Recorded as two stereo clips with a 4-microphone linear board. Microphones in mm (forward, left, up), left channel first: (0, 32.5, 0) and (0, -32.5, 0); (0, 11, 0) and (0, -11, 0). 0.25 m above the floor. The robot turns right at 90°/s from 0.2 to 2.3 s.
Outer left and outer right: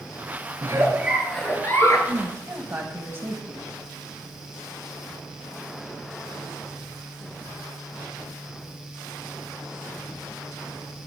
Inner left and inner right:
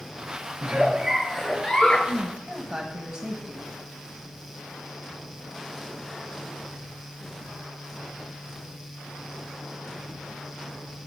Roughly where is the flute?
I don't hear a flute.